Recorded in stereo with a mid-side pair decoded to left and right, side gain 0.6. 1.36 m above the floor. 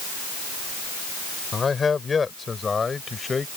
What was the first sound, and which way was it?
A man speaking, 25° left.